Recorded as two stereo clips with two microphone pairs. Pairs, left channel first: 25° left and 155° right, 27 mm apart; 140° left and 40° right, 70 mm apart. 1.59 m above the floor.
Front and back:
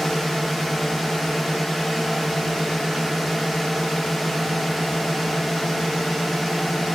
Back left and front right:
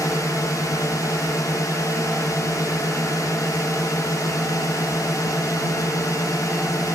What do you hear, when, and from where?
0.0 s a drone: 115° left